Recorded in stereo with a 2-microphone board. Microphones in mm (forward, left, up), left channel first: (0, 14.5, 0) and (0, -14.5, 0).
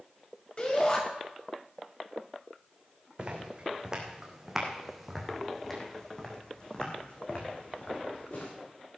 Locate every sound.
0.6 s a shout: 35° left (ahead or behind), 4.5 m
3.2 s footsteps: 30° right (ahead or behind), 3 m; by 8.5 s 50° left (ahead or behind), 3.5 m